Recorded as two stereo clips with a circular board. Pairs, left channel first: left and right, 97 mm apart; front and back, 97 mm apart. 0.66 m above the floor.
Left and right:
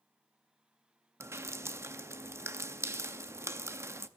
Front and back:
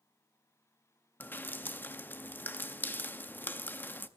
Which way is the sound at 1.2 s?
55° right.